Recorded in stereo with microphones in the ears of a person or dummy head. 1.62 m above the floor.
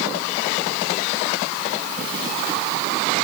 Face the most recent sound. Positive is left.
No sound to turn to.